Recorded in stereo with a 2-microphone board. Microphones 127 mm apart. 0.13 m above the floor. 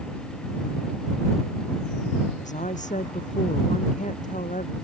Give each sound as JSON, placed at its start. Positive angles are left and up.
{"t": 2.4, "sound": "a woman speaking", "side_deg": 80}